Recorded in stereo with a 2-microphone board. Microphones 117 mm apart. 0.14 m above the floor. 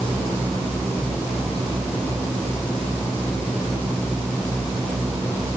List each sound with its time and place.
Only background noise.